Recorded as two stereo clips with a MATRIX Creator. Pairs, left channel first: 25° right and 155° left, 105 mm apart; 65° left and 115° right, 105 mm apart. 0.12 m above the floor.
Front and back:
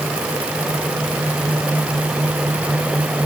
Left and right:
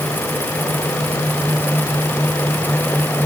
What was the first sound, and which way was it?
Only background noise.